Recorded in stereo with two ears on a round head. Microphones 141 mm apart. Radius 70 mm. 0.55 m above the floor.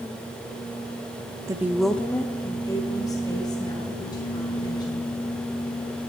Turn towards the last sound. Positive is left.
turn(degrees=25)  # may be behind; listen again after turning